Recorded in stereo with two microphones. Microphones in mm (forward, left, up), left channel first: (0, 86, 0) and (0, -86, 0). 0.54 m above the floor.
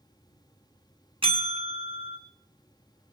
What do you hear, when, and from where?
1.2 s a bell: 35° right (ahead or behind), 1.2 m